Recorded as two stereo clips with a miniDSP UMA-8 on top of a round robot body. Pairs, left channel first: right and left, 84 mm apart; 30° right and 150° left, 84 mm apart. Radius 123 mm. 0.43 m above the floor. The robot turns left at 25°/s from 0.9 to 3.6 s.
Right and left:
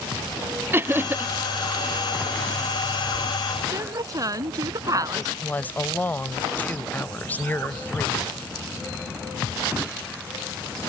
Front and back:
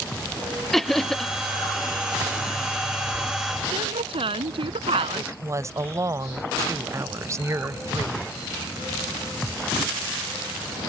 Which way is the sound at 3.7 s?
140° left.